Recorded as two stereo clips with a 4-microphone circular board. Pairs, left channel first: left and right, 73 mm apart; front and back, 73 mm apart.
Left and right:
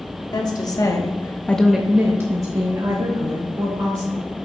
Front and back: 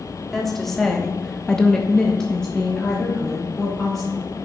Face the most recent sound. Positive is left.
turn(degrees=-85)